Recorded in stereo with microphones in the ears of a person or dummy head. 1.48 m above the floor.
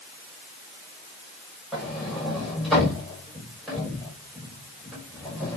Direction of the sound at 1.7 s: Centre (ahead or behind).